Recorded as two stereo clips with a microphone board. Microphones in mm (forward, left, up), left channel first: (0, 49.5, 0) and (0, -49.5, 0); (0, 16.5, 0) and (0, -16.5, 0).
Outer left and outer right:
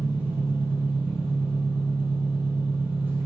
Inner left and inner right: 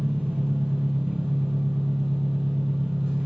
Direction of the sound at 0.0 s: 15° right (ahead or behind).